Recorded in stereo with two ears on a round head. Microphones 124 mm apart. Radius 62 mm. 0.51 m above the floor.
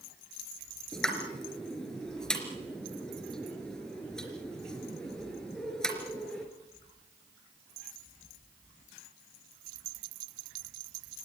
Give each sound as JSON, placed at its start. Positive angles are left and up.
{"t": 0.9, "sound": "a pop", "side_deg": 5, "distance_m": 3.5}